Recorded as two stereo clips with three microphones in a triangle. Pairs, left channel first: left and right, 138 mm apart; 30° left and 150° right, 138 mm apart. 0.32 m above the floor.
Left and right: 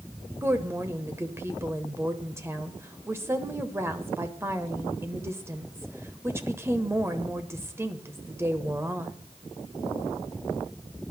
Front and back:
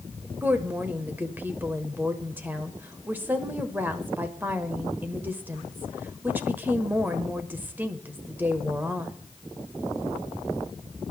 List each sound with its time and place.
0.4 s a woman speaking: 105° right, 1.0 m